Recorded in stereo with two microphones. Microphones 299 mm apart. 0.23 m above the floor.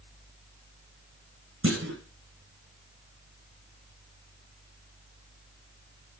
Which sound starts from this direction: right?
A clunk, at 1.6 s.